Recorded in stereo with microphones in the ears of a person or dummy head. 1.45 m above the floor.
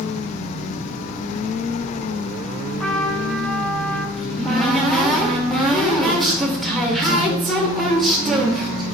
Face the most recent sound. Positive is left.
turn(degrees=0)  # may be behind; listen again after turning